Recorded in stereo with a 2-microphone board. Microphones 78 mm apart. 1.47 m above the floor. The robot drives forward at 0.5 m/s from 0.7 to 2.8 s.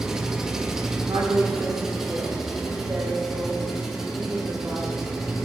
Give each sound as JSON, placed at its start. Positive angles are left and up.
{"t": 0.0, "sound": "an engine running", "side_deg": -10, "distance_m": 0.8}
{"t": 1.1, "sound": "a woman speaking", "side_deg": -55, "distance_m": 1.9}